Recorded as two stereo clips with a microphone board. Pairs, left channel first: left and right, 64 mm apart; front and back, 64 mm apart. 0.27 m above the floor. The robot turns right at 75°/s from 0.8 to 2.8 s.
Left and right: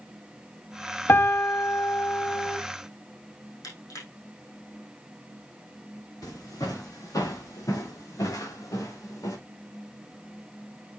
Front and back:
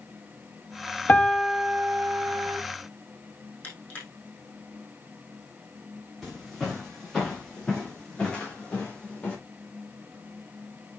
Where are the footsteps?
90° left, 6 m; by 9.4 s 70° left, 5 m.